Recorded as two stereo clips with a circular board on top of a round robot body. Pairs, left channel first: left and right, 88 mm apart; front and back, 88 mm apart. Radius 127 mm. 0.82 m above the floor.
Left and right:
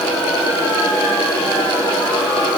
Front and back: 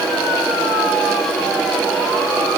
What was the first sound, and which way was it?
Only background noise.